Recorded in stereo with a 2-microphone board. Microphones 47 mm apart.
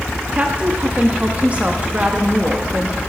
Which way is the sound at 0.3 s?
30° right (ahead or behind).